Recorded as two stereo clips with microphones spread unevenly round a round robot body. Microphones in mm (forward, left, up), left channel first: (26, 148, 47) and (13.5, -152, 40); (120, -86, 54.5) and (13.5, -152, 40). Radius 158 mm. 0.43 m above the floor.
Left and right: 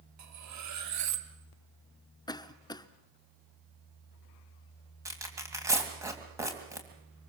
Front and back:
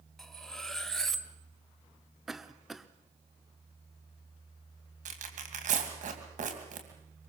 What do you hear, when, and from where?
0.2 s cutlery clinking: 55° right, 1.7 m
2.3 s a cough: 145° left, 0.7 m
5.0 s tearing paper: 175° right, 2.5 m